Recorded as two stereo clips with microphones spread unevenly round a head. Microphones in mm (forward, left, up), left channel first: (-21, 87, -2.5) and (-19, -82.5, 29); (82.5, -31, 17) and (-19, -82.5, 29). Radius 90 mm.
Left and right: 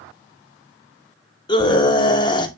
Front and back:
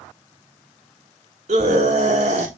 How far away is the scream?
About 2.5 m.